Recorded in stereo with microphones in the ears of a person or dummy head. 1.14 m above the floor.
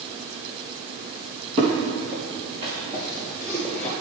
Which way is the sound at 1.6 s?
25° right (ahead or behind).